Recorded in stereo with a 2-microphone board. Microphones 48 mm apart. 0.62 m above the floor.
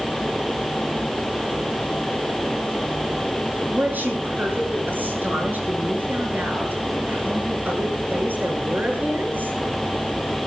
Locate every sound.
3.7 s a woman speaking: 40° right (ahead or behind), 8.5 m